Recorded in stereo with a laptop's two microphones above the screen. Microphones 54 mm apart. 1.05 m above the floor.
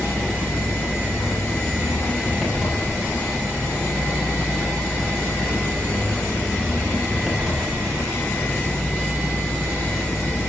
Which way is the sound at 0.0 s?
10° right (ahead or behind).